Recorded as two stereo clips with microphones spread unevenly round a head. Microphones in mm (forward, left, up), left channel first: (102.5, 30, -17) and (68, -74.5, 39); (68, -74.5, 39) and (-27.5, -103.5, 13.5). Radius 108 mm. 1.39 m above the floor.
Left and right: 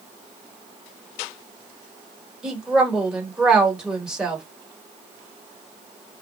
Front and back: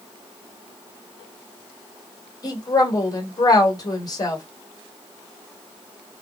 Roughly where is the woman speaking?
Ahead right.